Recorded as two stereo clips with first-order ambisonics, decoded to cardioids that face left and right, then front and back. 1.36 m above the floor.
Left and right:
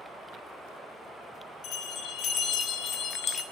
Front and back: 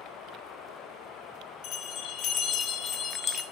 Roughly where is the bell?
Ahead left.